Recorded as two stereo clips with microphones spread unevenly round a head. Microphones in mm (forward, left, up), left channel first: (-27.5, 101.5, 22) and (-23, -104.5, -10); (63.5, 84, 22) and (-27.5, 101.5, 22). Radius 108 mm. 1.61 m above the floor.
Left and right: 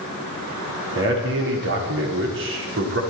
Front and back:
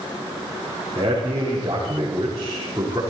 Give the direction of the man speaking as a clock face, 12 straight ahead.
4 o'clock.